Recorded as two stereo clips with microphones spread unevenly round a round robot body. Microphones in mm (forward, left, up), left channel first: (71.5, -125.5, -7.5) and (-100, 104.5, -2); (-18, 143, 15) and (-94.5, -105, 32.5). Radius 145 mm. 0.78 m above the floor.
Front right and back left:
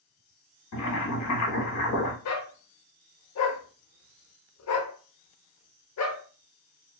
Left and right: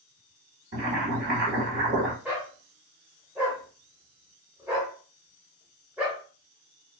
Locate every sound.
0.7 s boiling: 55° right, 1.1 m
2.2 s a dog barking: 25° right, 0.7 m